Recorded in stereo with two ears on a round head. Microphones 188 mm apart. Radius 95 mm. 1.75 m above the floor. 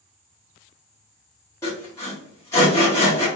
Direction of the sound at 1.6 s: 15° left (ahead or behind).